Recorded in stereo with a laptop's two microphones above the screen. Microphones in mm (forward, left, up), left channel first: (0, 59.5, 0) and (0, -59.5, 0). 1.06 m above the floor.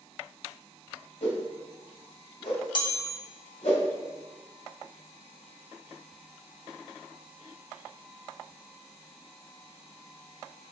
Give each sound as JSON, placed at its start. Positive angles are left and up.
{"t": 1.2, "sound": "a whoosh", "side_deg": 75, "distance_m": 1.8}
{"t": 2.8, "sound": "a chime", "side_deg": 40, "distance_m": 0.8}